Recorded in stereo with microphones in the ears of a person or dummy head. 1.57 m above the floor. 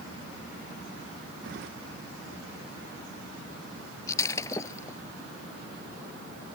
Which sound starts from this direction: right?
Keys jangling, at 1.4 s.